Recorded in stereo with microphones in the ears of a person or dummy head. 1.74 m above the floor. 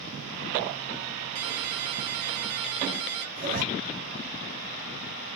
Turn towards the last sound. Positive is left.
turn(degrees=-40)  # may be behind; listen again after turning